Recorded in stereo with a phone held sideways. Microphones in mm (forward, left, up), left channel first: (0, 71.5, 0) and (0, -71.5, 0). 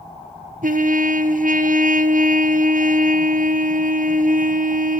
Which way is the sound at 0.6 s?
70° right (ahead or behind).